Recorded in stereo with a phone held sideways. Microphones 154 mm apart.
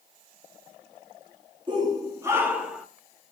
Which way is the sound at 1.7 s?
30° right (ahead or behind).